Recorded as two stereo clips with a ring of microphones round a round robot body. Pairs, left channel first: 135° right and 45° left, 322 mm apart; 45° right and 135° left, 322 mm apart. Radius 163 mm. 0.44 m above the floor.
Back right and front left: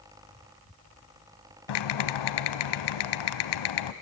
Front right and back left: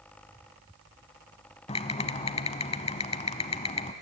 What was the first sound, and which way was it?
Typing on a keyboard, 115° right.